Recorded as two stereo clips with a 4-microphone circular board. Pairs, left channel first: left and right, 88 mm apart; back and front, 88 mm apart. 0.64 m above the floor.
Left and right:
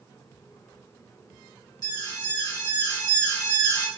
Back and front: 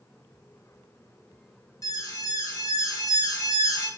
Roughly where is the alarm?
Behind left.